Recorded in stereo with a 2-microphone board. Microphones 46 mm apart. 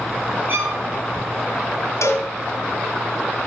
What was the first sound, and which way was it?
A violin, 45° right (ahead or behind).